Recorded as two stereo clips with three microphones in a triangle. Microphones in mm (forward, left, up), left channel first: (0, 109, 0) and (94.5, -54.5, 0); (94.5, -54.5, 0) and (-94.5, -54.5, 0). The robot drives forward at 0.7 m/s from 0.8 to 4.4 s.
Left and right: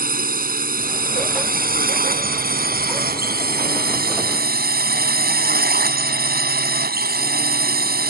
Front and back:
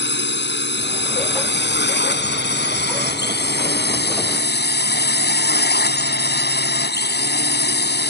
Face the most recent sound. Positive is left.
turn(degrees=-25)